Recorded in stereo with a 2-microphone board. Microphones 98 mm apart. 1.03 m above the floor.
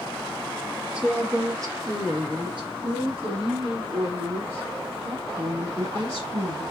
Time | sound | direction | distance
0.9 | a woman speaking | 10° right (ahead or behind) | 1.2 m